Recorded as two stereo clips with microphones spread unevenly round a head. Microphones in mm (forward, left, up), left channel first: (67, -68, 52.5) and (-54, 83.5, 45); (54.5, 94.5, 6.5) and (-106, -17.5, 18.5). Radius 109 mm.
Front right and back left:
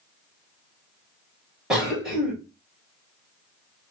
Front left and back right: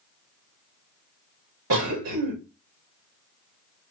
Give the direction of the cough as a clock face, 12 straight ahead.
5 o'clock.